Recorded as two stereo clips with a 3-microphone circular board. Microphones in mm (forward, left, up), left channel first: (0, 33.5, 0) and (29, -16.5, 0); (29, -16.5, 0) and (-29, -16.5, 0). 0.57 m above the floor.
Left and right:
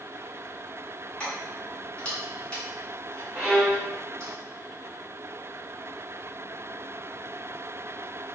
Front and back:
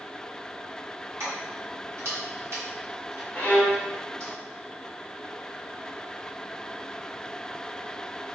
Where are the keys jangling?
175° right, 1.1 m.